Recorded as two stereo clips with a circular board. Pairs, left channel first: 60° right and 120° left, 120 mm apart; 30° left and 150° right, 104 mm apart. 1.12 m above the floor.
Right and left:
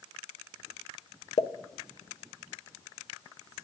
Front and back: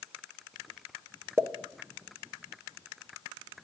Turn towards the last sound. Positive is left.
turn(degrees=-85)